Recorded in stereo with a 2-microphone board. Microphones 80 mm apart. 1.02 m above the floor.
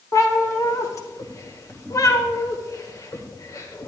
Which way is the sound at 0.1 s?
45° left (ahead or behind).